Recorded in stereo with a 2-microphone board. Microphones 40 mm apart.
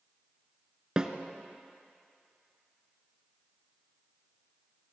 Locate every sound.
1.0 s a snare drum: 20° right (ahead or behind), 0.8 m